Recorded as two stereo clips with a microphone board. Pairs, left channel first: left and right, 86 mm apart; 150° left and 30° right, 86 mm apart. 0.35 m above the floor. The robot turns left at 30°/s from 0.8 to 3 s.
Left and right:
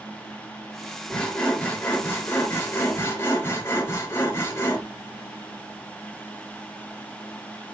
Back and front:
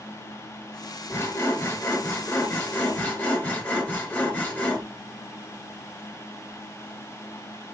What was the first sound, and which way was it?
Sawing, 160° left.